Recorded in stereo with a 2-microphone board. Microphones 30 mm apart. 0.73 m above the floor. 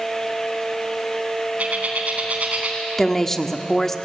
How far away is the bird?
About 4 m.